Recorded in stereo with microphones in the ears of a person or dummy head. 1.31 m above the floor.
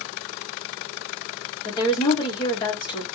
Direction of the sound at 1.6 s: 30° left (ahead or behind).